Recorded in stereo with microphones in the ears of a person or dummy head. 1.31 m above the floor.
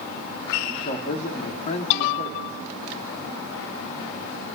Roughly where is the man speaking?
Left.